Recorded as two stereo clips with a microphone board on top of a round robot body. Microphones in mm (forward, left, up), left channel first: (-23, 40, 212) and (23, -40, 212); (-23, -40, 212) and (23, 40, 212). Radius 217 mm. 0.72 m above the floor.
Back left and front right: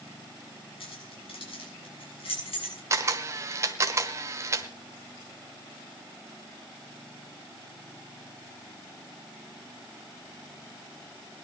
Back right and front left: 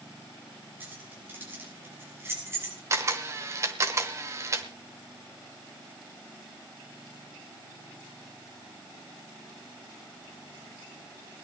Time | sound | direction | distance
0.8 | keys jangling | 130° left | 7 m
2.9 | a camera shutter | straight ahead | 1.1 m